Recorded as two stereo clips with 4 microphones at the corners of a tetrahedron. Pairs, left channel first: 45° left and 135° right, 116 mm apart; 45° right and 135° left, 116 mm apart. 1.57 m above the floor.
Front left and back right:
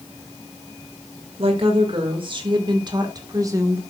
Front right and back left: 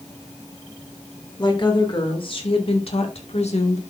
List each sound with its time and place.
1.4 s a woman speaking: 100° right, 2.5 m; by 3.8 s 70° right, 1.9 m